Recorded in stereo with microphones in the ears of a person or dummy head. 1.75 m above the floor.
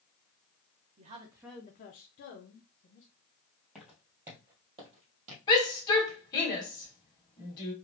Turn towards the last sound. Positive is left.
turn(degrees=20)  # may be behind; listen again after turning